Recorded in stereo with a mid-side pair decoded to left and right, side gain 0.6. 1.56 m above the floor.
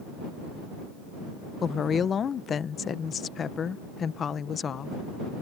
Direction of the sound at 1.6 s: 35° left.